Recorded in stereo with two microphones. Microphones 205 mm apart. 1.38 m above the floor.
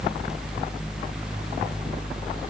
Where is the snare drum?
No snare drum in this recording.